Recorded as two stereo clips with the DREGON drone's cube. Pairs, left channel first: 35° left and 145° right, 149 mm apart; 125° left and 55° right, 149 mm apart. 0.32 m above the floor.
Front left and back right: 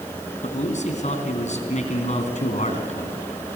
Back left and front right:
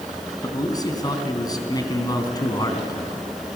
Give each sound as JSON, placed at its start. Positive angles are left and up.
{"t": 0.4, "sound": "a man speaking", "azimuth_deg": 65, "distance_m": 3.0}